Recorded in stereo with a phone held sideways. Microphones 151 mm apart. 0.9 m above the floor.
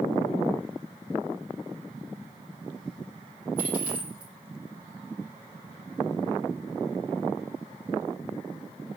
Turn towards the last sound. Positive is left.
turn(degrees=-10)  # may be behind; listen again after turning